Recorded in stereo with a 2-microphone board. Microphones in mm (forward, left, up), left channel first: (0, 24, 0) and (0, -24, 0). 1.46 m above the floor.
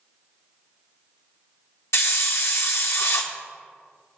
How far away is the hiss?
About 0.8 m.